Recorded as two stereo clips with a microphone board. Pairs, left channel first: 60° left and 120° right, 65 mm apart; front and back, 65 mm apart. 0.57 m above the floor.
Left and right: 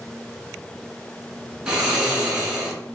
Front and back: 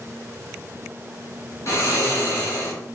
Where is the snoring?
40° right, 2.5 m.